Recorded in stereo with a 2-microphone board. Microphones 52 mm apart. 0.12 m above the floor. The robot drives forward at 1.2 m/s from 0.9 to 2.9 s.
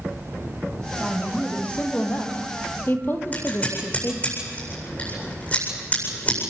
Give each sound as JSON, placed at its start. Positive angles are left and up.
{"t": 1.0, "sound": "a woman speaking", "side_deg": 25, "distance_m": 4.5}
{"t": 3.3, "sound": "scissors", "side_deg": 30, "distance_m": 8.0}